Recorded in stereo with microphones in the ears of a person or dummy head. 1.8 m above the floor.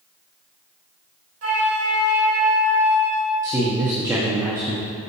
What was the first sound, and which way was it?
A flute, 60° right (ahead or behind).